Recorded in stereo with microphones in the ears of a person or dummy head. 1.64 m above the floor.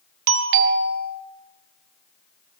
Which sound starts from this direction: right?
A doorbell, at 0.3 s.